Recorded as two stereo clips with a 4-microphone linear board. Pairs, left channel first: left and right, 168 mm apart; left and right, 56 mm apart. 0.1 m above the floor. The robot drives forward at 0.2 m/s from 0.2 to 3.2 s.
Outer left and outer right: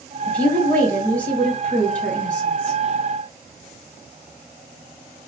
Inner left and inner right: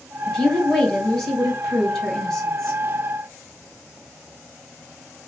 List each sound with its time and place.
0.3 s a woman speaking: 10° left (ahead or behind), 1.5 m